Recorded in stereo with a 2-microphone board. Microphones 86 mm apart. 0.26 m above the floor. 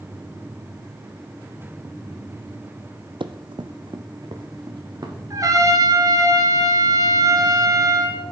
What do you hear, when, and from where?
3.2 s running footsteps: 70° right (ahead or behind), 0.6 m; by 5.2 s 50° right (ahead or behind), 2 m
5.3 s a trumpet: 40° right (ahead or behind), 1.2 m